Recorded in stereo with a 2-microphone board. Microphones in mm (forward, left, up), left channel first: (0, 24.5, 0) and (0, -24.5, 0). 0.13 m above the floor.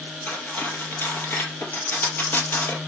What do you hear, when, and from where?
0.3 s cutlery clinking: 45° left (ahead or behind), 2 m